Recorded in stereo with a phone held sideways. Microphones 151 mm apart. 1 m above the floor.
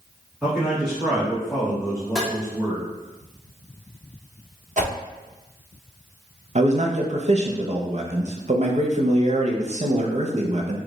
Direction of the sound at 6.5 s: 50° right (ahead or behind).